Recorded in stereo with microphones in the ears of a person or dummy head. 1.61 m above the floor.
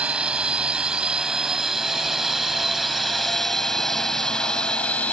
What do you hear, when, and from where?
0.0 s a drone: 5° right (ahead or behind); by 5.1 s 10° left (ahead or behind)